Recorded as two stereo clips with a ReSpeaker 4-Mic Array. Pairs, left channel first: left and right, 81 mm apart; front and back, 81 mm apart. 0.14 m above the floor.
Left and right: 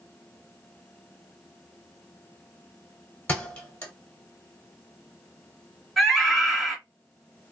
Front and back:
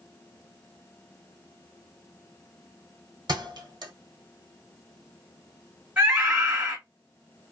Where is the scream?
175° left, 1.8 m.